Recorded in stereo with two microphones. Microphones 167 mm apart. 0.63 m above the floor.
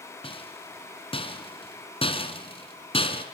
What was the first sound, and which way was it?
A rattle, 35° left (ahead or behind).